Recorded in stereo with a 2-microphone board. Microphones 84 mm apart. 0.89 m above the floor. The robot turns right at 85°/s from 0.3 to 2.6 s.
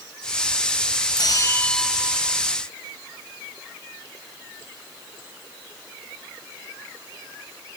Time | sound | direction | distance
1.2 | a bell | 120° left | ?